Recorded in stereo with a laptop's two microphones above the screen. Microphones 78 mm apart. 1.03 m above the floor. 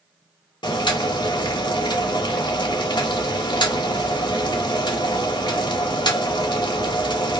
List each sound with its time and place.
0.6 s boiling: 75° left (ahead or behind), 0.9 m